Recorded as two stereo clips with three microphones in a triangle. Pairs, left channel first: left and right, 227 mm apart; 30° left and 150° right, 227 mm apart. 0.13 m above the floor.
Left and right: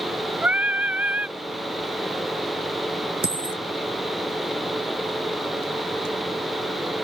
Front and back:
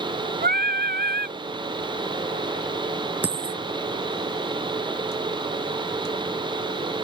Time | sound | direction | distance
0.4 | singing | 170° right | ?
3.2 | a dropped coin | 70° right | ?